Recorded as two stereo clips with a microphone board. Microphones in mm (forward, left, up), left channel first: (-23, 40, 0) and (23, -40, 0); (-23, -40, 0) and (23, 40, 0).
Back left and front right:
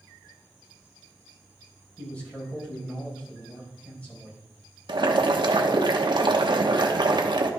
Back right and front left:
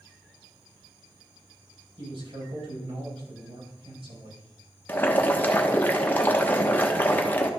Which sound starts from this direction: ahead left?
A man speaking, at 2.0 s.